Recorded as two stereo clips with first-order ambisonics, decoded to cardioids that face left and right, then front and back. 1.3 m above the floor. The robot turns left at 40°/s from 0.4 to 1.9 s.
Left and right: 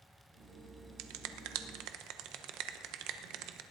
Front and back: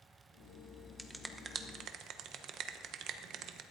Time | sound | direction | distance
1.0 | a finger snap | 90° right | 0.9 m